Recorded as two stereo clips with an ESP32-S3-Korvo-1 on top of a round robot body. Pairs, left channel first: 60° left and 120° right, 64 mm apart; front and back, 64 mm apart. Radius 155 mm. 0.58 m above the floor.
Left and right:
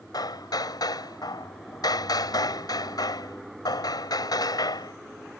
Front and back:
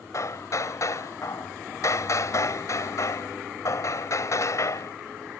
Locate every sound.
0.1 s hammering: 40° left